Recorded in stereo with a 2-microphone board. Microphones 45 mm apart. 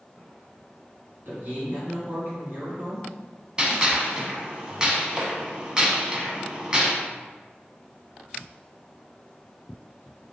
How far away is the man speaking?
About 1.7 m.